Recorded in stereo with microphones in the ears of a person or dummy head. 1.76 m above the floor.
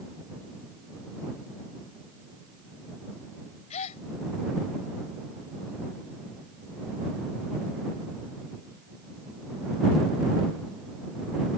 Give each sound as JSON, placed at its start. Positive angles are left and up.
{"t": 3.7, "sound": "a gasp", "side_deg": 40}